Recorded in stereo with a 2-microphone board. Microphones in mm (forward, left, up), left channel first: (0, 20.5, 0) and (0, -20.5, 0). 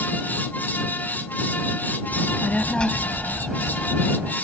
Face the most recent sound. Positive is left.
turn(degrees=-35)  # may be behind; listen again after turning